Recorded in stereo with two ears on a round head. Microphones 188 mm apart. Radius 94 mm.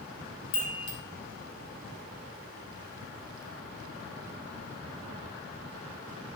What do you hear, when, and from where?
0.5 s a chime: 65° left (ahead or behind), 0.9 m